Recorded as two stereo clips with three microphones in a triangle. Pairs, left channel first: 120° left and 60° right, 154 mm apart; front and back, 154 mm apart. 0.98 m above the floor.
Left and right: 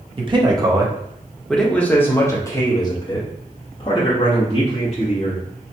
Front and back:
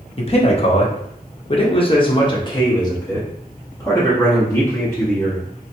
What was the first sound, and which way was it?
A man speaking, 25° right.